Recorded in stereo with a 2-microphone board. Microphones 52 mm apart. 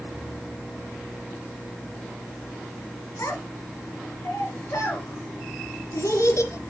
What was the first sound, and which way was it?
A child speaking, 75° left (ahead or behind).